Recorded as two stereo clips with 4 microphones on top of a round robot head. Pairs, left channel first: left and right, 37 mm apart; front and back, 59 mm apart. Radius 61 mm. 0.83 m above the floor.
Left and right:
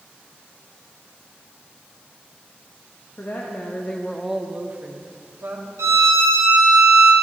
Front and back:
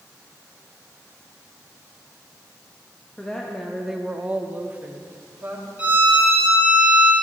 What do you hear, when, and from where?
3.2 s a woman speaking: 80° left, 1.1 m; by 5.7 s 120° right, 1.7 m
5.8 s a violin: 105° right, 0.6 m